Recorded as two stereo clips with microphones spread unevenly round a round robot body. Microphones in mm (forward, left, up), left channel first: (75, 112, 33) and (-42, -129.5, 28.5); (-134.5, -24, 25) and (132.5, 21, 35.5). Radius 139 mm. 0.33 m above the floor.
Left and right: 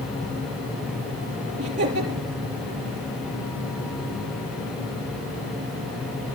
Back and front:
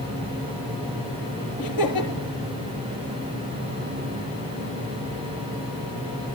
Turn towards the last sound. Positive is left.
turn(degrees=180)